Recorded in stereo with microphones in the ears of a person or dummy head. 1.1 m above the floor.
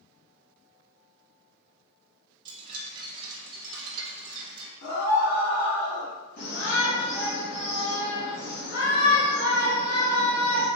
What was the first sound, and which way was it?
A chime, 25° right (ahead or behind).